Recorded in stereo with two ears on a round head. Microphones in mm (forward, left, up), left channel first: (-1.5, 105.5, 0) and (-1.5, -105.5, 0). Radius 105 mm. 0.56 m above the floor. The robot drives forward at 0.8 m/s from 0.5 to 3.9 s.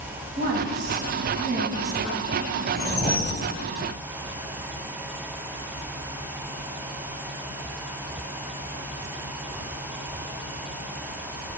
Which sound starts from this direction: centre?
A whoosh, at 2.7 s.